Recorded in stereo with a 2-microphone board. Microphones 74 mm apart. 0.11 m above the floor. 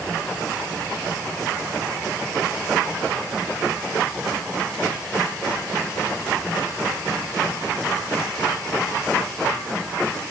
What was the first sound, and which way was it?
Only background noise.